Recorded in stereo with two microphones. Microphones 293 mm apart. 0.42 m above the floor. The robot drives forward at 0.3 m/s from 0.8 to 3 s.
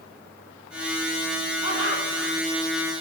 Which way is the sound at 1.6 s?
65° left (ahead or behind).